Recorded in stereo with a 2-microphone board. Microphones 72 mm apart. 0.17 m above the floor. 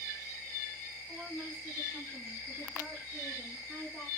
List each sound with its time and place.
1.1 s a woman speaking: 15° right (ahead or behind), 1.5 m; by 4.1 s 5° right (ahead or behind), 2.5 m